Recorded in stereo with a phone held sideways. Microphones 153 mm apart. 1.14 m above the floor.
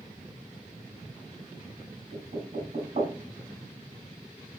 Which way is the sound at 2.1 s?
60° right (ahead or behind).